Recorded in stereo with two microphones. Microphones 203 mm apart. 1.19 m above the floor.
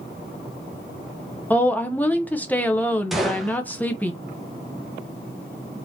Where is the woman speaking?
10° left (ahead or behind), 0.7 m.